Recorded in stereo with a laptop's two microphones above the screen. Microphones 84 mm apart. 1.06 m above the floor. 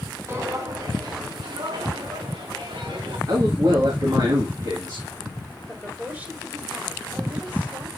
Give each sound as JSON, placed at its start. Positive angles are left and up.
{"t": 0.3, "sound": "footsteps", "side_deg": -30, "distance_m": 1.8}
{"t": 3.3, "sound": "a man speaking", "side_deg": -50, "distance_m": 2.0}
{"t": 5.7, "sound": "a woman speaking", "side_deg": -20, "distance_m": 5.0}